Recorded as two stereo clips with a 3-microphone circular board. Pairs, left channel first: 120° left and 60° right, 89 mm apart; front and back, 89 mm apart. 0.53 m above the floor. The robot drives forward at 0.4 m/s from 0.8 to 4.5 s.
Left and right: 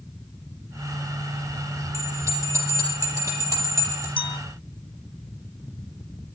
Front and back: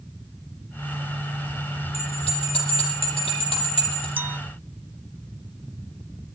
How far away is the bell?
About 9 m.